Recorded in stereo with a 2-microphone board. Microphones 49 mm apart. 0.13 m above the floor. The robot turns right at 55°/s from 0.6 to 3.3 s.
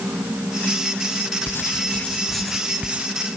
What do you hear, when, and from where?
1.5 s writing: 125° left; by 3.0 s 145° right